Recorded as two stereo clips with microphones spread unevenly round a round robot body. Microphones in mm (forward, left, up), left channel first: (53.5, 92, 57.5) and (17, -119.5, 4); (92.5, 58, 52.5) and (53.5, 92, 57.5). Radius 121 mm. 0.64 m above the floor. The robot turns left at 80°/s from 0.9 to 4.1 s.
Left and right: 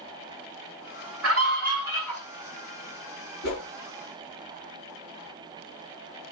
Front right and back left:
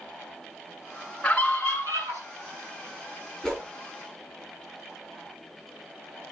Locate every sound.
1.2 s a scream: 120° right, 6 m; by 2.2 s 160° left, 6 m
3.4 s a whoosh: 45° left, 6.5 m; by 3.6 s 25° left, 6.5 m